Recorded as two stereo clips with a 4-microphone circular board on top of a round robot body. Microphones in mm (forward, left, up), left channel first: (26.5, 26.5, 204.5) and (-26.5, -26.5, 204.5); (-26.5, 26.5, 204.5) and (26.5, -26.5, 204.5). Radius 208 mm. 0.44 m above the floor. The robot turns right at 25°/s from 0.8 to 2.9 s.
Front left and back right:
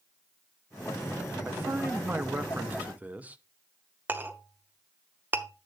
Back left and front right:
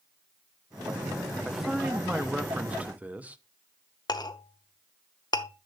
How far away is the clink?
About 0.9 m.